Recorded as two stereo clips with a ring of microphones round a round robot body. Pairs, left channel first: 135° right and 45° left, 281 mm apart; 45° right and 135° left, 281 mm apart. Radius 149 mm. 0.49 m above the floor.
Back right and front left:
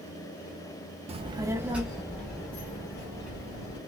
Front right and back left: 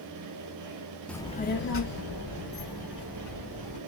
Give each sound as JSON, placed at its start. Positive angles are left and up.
{"t": 1.1, "sound": "a child speaking", "azimuth_deg": 35, "distance_m": 0.5}